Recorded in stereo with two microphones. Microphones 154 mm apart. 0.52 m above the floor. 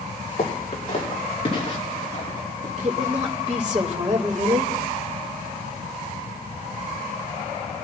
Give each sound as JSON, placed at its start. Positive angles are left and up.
{"t": 0.4, "sound": "footsteps", "side_deg": 40, "distance_m": 5.0}
{"t": 2.8, "sound": "a woman speaking", "side_deg": -50, "distance_m": 2.5}